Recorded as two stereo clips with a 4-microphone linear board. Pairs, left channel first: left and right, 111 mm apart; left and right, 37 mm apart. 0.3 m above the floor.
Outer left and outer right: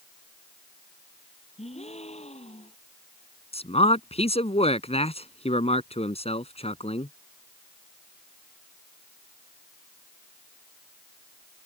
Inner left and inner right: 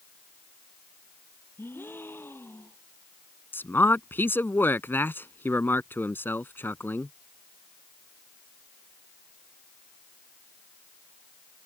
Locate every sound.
1.6 s a gasp: 75° left (ahead or behind)
3.5 s a man speaking: 70° left (ahead or behind)